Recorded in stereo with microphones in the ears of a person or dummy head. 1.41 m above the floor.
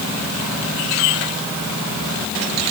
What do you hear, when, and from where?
Only background noise.